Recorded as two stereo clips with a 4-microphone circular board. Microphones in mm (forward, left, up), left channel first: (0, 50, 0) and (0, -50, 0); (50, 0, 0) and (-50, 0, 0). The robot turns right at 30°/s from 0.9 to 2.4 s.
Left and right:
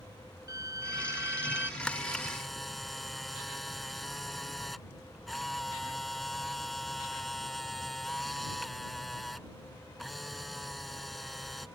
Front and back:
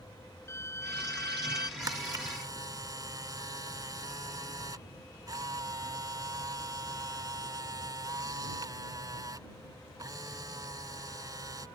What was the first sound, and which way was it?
A violin, 50° right.